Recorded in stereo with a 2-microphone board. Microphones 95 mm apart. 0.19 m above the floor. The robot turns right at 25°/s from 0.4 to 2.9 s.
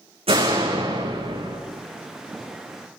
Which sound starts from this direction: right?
A door slam, at 0.3 s.